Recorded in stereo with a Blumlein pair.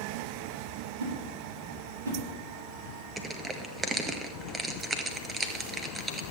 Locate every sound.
1.0 s a whoosh: 70° right, 7.5 m
3.2 s crushing: 10° right, 1.5 m